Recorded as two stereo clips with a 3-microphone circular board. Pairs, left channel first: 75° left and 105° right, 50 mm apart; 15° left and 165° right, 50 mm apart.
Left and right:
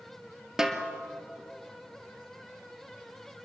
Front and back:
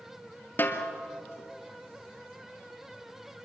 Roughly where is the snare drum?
Ahead right.